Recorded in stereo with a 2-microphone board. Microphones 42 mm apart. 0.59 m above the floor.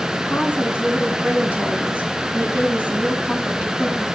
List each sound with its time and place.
0.3 s a woman speaking: 35° right (ahead or behind), 4.5 m